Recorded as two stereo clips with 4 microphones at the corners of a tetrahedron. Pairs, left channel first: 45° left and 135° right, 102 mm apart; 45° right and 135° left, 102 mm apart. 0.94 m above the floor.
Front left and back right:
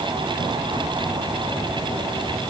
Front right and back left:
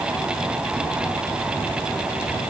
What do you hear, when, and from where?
Only background noise.